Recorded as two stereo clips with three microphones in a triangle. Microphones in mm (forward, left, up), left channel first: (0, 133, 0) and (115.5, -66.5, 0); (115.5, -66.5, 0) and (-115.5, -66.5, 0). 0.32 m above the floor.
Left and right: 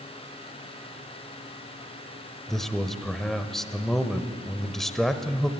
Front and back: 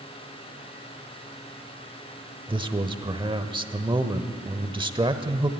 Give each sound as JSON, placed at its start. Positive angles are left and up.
{"t": 2.5, "sound": "a man speaking", "azimuth_deg": -155, "distance_m": 0.9}